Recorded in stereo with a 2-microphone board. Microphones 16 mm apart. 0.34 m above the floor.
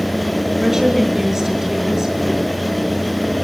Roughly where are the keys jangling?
No keys jangling in this recording.